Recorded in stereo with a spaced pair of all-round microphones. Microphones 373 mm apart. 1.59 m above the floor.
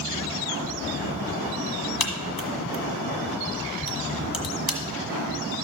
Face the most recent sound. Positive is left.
turn(degrees=65)  # may be behind; listen again after turning